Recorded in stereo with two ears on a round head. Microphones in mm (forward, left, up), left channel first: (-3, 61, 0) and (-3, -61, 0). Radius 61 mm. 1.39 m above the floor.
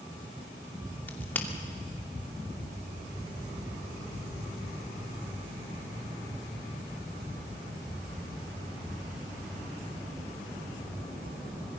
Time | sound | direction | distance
1.1 | a crack | 15° left (ahead or behind) | 2.5 m